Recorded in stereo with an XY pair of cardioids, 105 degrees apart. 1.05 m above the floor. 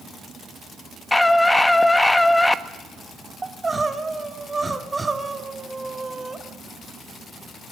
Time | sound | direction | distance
1.1 | a scream | 15° left | 1.5 m
3.4 | crying | 20° right | 1.9 m